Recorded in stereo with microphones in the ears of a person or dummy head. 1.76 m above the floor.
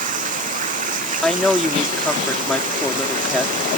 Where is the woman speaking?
5° left (ahead or behind).